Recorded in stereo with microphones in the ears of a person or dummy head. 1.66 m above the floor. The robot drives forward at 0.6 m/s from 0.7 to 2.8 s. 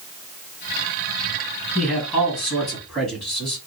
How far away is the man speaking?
About 1.9 m.